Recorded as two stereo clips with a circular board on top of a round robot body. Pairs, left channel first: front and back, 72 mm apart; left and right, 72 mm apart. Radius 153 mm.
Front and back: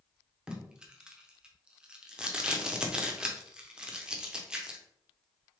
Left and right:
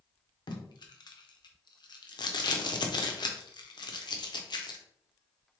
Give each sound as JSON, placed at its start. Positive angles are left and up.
{"t": 0.5, "sound": "tape being pulled", "azimuth_deg": 100, "distance_m": 0.8}